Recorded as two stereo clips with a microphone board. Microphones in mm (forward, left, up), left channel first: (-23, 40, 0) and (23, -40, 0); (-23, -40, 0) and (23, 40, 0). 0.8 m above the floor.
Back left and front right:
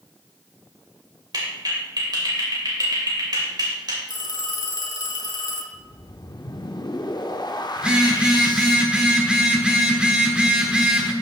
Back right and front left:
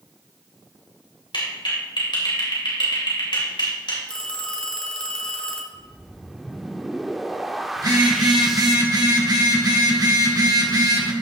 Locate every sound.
1.3 s a clap: 95° right, 3 m
4.1 s a phone ringing: 160° left, 1.4 m
5.7 s a whoosh: 150° left, 0.6 m
7.8 s a phone buzzing: 20° left, 1.4 m